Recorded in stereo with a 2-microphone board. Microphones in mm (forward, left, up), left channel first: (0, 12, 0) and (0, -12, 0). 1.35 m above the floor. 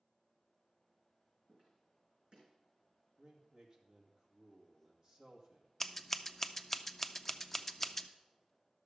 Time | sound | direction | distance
1.5 | footsteps | 50° right (ahead or behind) | 5 m
3.2 | a man speaking | 30° right (ahead or behind) | 2 m
5.8 | scissors | 10° left (ahead or behind) | 0.5 m